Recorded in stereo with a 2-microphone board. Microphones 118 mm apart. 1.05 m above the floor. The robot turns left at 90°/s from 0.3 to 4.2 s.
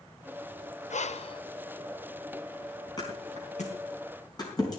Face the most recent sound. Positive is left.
turn(degrees=35)  # may be behind; listen again after turning